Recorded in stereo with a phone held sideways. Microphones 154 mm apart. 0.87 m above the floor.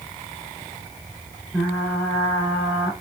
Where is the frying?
10° left (ahead or behind), 3 m.